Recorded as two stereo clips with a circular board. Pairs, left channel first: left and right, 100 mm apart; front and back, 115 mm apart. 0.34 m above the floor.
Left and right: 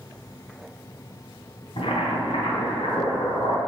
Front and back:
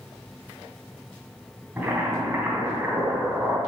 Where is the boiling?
105° left, 3 m.